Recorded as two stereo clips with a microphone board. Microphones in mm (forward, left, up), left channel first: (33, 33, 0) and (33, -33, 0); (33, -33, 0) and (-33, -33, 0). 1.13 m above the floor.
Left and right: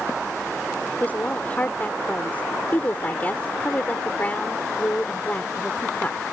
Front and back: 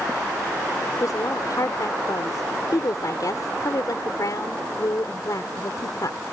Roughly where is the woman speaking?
Ahead left.